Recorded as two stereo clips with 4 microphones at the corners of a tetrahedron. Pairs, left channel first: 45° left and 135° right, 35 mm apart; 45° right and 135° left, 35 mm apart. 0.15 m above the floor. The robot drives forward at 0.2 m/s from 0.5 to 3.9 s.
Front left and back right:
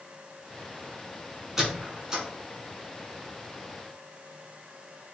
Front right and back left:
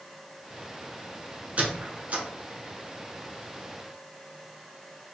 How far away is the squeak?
About 0.8 m.